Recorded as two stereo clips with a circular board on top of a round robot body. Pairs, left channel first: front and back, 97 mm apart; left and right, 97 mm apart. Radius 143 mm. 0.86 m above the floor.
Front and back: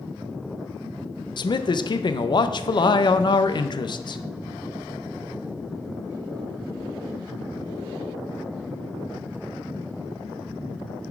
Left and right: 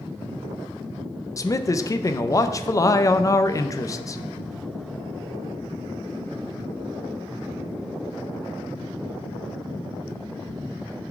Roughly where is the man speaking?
Ahead left.